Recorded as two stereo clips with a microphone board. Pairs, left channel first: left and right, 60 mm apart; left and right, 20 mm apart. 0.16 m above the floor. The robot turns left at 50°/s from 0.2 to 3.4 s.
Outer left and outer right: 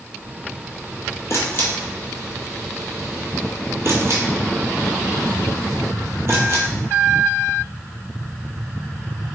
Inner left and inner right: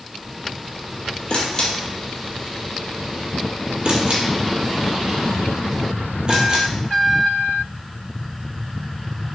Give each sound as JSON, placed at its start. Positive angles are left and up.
{"t": 1.3, "sound": "a camera shutter", "side_deg": 55, "distance_m": 0.7}